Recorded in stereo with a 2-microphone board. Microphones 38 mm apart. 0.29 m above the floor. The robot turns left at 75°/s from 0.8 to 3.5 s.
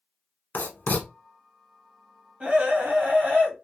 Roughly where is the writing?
Left.